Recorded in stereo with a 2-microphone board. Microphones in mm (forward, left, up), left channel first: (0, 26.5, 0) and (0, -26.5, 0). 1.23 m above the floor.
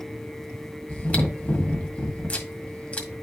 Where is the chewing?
30° left (ahead or behind), 1.7 m.